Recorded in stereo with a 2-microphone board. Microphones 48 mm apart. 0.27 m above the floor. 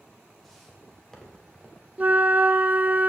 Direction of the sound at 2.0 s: 35° right (ahead or behind).